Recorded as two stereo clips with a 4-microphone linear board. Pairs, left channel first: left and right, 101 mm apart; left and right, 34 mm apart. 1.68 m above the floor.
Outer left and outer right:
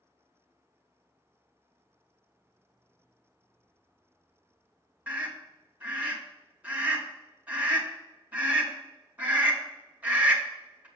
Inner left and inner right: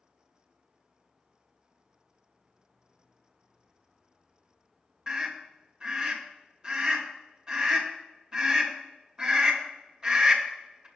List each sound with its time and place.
5.1 s a scream: 15° right (ahead or behind), 2 m